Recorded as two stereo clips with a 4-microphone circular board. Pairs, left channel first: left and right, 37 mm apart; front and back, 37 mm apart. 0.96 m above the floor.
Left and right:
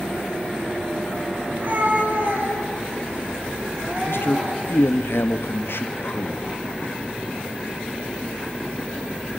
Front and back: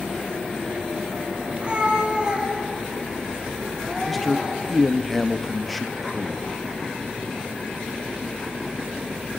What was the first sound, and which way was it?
A cat meowing, 120° right.